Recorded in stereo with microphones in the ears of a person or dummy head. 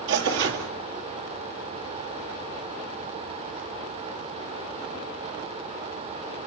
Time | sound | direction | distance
0.1 | tearing paper | 60° right (ahead or behind) | 2.0 m